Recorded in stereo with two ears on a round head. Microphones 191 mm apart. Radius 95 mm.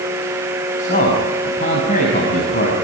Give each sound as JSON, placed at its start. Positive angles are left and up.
{"t": 0.8, "sound": "a man speaking", "side_deg": 40, "distance_m": 5.0}